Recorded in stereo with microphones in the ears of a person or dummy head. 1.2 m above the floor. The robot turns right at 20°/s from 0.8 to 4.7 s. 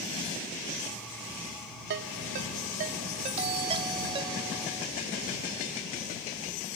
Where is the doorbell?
40° right (ahead or behind); by 4.9 s 15° right (ahead or behind).